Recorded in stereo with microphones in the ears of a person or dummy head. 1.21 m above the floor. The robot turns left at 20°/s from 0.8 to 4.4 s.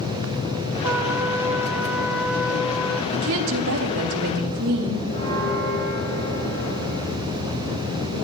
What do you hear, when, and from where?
0.8 s a trumpet: 15° right (ahead or behind), 1.0 m; by 3.0 s centre (ahead or behind), 1.0 m
3.1 s a woman speaking: 80° right, 3 m; by 5.0 s 55° right (ahead or behind), 3 m
5.1 s a bell: 35° left (ahead or behind), 8 m